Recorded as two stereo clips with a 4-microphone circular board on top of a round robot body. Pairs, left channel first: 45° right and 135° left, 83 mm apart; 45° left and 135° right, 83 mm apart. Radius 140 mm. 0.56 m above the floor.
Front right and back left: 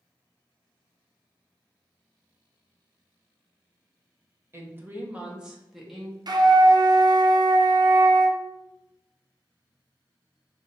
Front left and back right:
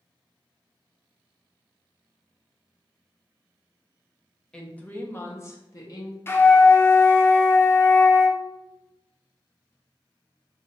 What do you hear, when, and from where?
4.5 s a woman speaking: 120° left, 1.2 m; by 6.2 s 40° left, 1.5 m
6.3 s a flute: 105° left, 0.6 m